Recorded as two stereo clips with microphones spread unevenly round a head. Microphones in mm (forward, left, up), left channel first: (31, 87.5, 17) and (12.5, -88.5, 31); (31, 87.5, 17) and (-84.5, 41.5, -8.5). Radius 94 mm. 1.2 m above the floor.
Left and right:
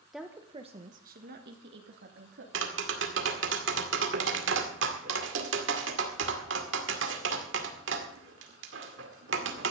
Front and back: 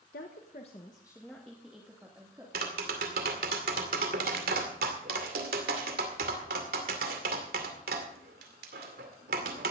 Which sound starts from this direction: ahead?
A woman speaking, at 0.1 s.